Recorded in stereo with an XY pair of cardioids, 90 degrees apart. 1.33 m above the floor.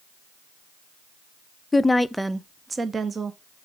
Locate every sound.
1.7 s a woman speaking: 30° left, 0.6 m; by 3.7 s 50° right, 1.3 m